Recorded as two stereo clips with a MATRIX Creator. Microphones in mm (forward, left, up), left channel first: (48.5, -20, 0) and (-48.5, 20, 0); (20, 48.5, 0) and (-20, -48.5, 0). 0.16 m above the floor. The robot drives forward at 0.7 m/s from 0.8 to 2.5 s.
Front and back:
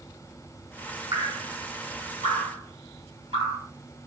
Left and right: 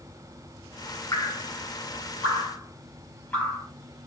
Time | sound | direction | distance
1.1 | dripping | 115° left | 1.9 m